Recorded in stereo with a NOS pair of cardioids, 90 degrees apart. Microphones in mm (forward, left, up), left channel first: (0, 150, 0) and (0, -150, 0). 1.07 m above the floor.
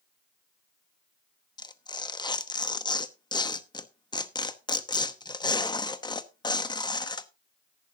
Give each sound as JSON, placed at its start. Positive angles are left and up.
{"t": 1.6, "sound": "tearing paper", "azimuth_deg": 15, "distance_m": 1.0}